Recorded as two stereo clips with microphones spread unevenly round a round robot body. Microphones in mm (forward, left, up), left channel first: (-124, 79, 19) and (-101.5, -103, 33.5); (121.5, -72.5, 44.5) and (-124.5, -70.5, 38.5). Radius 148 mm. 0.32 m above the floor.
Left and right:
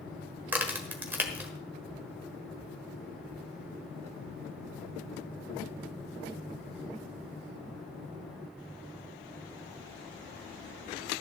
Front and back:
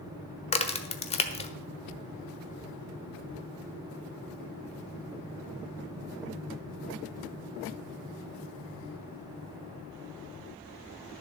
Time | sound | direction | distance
0.5 | a crack | 5° right | 1.3 m